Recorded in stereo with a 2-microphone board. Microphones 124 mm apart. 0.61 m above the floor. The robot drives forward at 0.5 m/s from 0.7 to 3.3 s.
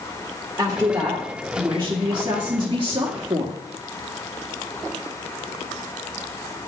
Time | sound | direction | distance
0.6 | a woman speaking | 20° right (ahead or behind) | 1.7 m